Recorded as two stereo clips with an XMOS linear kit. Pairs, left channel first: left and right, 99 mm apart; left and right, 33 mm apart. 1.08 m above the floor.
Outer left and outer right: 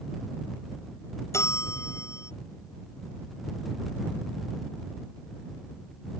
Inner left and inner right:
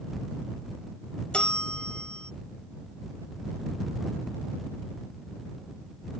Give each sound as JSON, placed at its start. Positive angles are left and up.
{"t": 1.3, "sound": "a bell", "side_deg": 30}